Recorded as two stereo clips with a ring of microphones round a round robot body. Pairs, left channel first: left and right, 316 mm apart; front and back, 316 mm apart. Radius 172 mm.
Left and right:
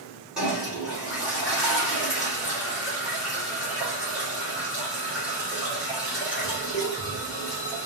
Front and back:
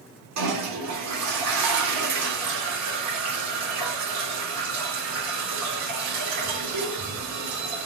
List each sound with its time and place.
0.4 s a toilet flushing: 175° right, 1.7 m